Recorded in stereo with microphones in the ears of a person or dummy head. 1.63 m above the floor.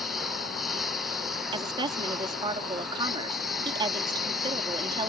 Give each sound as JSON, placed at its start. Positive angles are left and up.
{"t": 0.0, "sound": "a lawn mower", "side_deg": 0}
{"t": 1.5, "sound": "a woman speaking", "side_deg": -25}